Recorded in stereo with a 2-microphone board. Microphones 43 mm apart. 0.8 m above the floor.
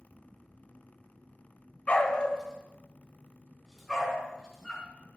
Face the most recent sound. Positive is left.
turn(degrees=-5)  # may be behind; listen again after turning